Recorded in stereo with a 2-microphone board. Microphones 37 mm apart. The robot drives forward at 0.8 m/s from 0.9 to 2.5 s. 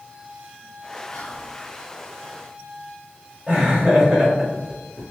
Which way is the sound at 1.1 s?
25° left (ahead or behind).